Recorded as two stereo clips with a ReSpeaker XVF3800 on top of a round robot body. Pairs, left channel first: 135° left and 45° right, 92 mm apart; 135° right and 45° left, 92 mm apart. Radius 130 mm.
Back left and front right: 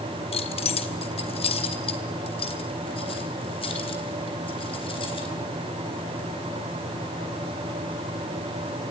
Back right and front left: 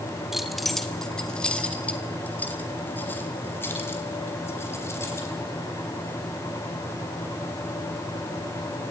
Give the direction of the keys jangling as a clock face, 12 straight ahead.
8 o'clock.